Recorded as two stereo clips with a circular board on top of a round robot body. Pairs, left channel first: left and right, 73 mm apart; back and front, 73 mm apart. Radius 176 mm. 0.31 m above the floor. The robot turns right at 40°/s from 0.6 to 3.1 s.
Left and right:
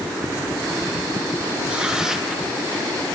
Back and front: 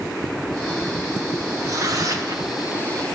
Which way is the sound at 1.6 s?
30° right.